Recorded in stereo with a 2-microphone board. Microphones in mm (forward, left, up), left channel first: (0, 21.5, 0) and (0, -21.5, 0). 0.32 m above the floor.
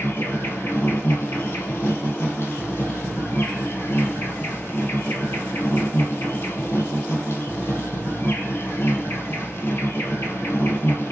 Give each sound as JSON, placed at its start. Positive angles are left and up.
{"t": 0.0, "sound": "an insect", "side_deg": 65, "distance_m": 1.4}